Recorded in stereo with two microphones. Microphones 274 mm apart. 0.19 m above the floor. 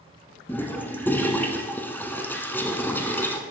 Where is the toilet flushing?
5° left (ahead or behind), 0.8 m.